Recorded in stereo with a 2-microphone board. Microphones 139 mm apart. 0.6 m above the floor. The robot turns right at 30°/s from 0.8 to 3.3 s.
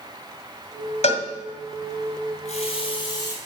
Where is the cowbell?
50° left (ahead or behind), 1.5 m; by 1.2 s 60° left (ahead or behind), 1.5 m.